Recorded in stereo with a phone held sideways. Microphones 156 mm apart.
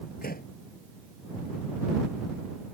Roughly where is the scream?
No scream in this recording.